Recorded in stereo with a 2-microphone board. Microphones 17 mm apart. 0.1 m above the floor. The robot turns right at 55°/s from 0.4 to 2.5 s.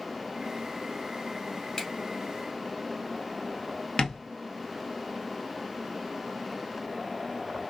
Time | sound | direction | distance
1.8 | a finger snap | 35° left (ahead or behind) | 1.6 m
4.0 | tapping | 50° left (ahead or behind) | 0.8 m